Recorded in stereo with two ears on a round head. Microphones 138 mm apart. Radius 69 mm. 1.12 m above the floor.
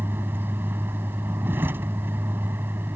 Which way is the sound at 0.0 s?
15° right (ahead or behind).